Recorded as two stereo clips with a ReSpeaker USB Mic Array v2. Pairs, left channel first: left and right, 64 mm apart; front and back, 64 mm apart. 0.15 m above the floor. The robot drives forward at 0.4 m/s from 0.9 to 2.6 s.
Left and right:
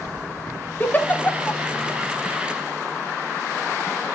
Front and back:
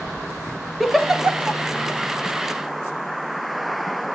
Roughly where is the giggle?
Left.